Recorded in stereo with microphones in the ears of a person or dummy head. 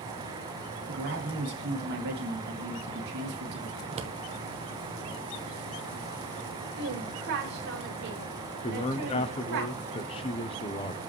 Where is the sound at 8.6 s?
30° left (ahead or behind), 0.8 m.